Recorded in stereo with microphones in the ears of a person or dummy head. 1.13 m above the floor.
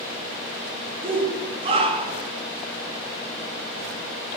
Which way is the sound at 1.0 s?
30° right (ahead or behind).